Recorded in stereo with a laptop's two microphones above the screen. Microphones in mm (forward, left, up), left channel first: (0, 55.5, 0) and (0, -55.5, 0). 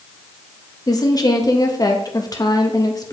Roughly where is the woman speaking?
Left.